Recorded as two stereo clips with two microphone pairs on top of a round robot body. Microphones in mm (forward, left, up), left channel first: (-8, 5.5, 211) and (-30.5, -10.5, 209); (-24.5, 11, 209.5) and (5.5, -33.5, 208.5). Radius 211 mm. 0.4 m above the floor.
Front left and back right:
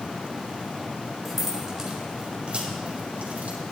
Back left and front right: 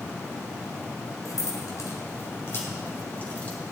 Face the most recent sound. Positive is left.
turn(degrees=-170)